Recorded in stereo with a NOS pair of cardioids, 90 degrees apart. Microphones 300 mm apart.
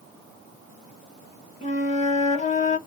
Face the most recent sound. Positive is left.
turn(degrees=25)